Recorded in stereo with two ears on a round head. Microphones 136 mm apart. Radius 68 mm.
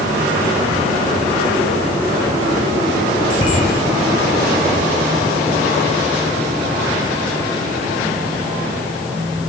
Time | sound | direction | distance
3.3 | a bicycle bell | 30° left (ahead or behind) | 7.5 m